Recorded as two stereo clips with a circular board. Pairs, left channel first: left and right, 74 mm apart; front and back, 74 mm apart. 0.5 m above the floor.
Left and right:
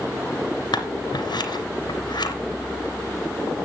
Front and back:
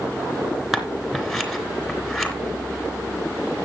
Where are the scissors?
95° left, 2.5 m.